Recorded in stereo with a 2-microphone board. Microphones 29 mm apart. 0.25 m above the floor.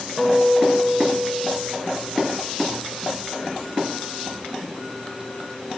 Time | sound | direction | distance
0.2 | a guitar | 5° right (ahead or behind) | 6.5 m